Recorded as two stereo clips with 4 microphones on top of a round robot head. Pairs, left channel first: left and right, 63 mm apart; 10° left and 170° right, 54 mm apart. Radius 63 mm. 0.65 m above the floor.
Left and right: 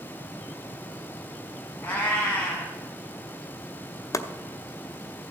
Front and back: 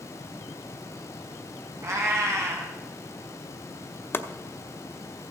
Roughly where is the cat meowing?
Behind left.